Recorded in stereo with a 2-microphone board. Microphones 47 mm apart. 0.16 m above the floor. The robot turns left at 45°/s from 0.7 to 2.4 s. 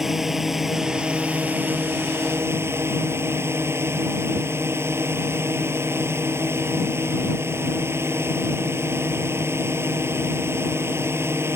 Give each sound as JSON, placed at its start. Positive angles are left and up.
{"t": 0.0, "sound": "a drone", "azimuth_deg": -10}